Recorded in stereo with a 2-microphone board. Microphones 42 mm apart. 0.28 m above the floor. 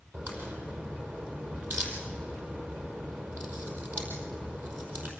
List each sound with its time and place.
0.1 s a crack: 50° right (ahead or behind), 5 m